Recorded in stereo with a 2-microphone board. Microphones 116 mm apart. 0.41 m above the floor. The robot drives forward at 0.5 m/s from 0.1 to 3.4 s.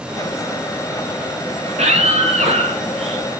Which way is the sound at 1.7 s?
75° right (ahead or behind).